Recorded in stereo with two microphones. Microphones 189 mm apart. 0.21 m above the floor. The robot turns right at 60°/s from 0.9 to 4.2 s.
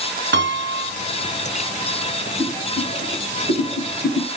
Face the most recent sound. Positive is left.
turn(degrees=20)  # may be behind; listen again after turning